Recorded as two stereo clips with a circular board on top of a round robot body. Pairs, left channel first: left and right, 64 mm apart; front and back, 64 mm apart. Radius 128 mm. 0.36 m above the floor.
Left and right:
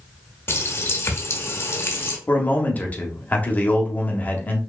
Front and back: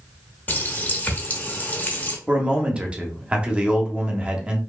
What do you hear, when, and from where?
0.5 s a running tap: 50° left, 0.8 m
2.3 s a man speaking: 125° left, 0.9 m